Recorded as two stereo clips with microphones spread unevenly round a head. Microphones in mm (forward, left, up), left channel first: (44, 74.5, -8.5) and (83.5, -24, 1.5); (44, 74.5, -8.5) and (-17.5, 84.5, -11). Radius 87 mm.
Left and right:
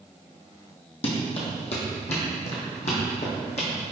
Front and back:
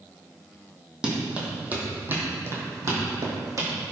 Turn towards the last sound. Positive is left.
turn(degrees=150)